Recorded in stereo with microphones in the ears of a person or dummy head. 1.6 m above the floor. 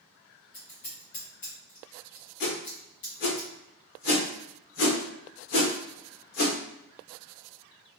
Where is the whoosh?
50° left (ahead or behind), 1.0 m.